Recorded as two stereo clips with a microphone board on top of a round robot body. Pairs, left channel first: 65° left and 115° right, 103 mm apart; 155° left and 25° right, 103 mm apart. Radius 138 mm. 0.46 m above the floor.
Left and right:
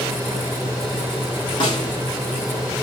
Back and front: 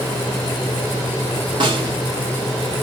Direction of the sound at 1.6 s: 20° left.